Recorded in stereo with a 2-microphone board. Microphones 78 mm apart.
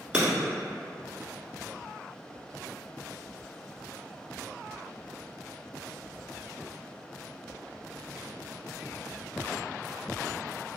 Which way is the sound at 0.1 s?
15° right (ahead or behind).